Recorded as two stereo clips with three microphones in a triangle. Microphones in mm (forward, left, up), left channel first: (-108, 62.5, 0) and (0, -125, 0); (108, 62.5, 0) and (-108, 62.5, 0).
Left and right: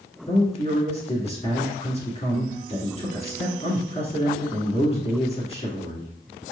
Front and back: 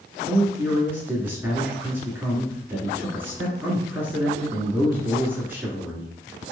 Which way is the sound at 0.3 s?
110° left.